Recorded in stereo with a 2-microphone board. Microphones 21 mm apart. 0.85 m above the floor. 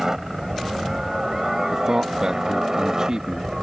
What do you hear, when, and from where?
0.0 s a helicopter: 25° right (ahead or behind); by 3.6 s 30° right (ahead or behind)
1.7 s a man speaking: 35° right (ahead or behind)